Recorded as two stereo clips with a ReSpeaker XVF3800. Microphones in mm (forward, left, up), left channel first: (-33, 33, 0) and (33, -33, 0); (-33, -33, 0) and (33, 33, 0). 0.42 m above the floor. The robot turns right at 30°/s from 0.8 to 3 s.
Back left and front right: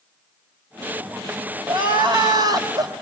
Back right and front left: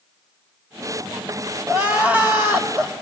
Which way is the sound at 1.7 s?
35° right.